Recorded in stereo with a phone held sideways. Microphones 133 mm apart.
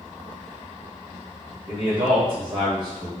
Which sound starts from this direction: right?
A man speaking, at 1.7 s.